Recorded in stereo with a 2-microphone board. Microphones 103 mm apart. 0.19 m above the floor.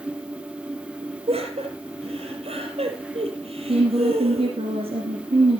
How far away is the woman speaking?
About 2.5 m.